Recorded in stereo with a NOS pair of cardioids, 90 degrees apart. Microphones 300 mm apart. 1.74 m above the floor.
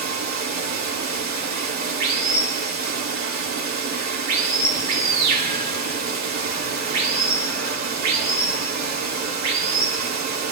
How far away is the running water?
About 3.5 m.